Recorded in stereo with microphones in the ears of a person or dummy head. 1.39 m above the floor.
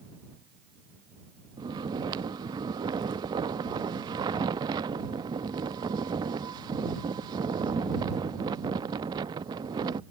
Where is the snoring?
20° right (ahead or behind).